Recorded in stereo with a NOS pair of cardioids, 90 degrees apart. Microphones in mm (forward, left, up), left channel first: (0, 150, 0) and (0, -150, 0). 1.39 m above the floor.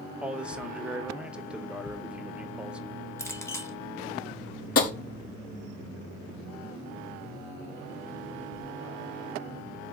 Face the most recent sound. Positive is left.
turn(degrees=50)